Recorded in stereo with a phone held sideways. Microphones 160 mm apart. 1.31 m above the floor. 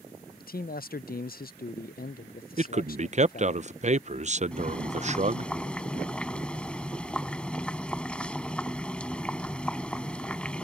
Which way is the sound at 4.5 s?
5° left (ahead or behind).